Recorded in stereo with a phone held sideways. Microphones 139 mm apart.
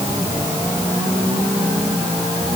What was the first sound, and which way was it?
Only background noise.